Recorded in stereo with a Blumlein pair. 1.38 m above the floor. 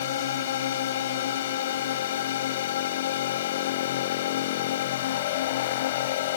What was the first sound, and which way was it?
A drone, 60° left.